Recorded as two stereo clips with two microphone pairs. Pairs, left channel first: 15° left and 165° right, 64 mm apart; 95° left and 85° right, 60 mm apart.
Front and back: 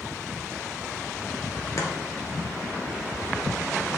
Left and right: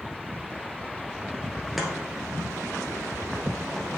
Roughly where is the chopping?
Ahead.